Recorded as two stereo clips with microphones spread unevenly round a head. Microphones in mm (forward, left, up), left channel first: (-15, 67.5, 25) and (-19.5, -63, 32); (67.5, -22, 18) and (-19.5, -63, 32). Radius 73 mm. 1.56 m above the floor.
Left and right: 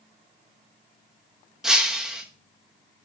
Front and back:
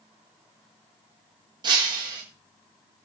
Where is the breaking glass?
175° right, 1.0 m.